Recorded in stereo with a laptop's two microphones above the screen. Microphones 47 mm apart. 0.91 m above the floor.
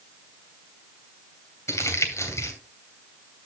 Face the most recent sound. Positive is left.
turn(degrees=80)